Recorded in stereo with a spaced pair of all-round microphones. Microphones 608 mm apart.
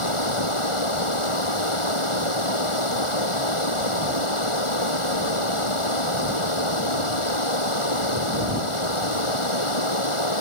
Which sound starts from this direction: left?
Running water, at 0.0 s.